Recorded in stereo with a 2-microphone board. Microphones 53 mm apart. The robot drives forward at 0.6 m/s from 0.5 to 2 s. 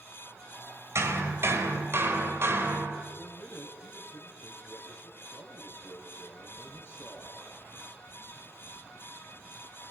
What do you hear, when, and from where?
0.9 s hammering: 60° right (ahead or behind), 2.5 m; by 3.0 s 50° right (ahead or behind), 2.5 m
3.1 s a man speaking: 45° left (ahead or behind), 3 m